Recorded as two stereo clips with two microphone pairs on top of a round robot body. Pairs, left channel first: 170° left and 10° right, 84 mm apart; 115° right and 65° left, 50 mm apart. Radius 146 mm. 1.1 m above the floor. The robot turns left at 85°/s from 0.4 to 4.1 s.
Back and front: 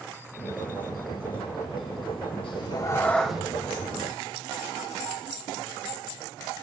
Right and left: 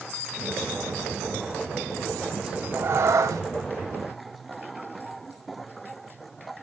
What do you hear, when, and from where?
2.4 s a cat meowing: 150° left, 1.2 m; by 3.4 s 65° left, 1.2 m